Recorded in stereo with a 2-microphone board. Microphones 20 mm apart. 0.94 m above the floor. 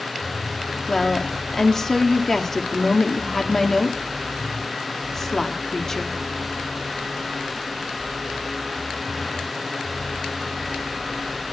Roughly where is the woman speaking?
Left.